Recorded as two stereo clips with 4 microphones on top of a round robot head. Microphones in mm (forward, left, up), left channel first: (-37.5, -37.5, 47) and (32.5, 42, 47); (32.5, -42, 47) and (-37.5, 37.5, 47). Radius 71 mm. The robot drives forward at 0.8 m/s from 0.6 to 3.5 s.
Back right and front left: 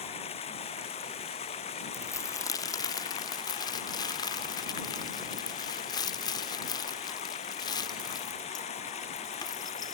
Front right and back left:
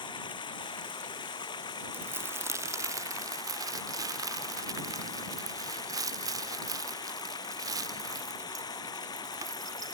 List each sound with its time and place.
0.0 s running water: 95° right; by 10.0 s 105° right
1.9 s crumpling: 170° right; by 10.0 s 175° right